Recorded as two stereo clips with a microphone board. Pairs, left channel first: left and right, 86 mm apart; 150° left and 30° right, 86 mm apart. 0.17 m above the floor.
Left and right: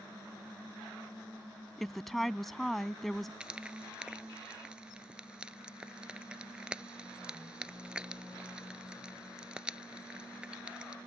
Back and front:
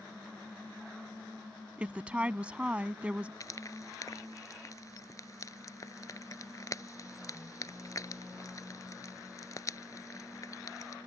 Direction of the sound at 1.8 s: 10° left.